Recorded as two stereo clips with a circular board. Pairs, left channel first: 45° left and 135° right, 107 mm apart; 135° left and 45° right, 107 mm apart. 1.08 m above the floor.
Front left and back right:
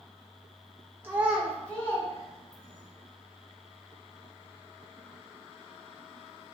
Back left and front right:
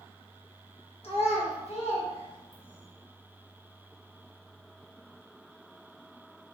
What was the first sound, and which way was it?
A child speaking, 155° left.